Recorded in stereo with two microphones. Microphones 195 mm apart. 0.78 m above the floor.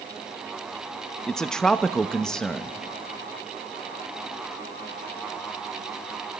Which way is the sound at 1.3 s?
5° left (ahead or behind).